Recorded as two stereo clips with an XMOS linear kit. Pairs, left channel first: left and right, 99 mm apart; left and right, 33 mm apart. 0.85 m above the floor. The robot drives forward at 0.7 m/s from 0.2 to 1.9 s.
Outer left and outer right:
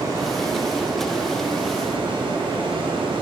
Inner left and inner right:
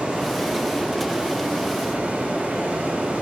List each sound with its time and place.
0.0 s running water: 40° right (ahead or behind), 2.5 m; by 3.2 s 65° right (ahead or behind), 1.8 m